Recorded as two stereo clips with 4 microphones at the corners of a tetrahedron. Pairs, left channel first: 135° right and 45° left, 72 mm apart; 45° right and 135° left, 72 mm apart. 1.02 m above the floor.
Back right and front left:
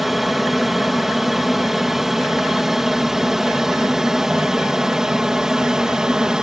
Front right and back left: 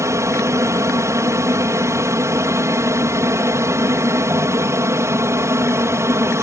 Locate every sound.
0.0 s an aircraft: 135° left; by 6.4 s 120° left